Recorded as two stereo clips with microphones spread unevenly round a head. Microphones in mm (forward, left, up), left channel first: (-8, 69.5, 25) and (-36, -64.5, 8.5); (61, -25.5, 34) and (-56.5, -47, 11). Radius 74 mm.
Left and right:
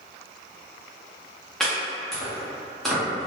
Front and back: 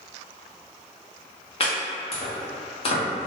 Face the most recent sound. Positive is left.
turn(degrees=-15)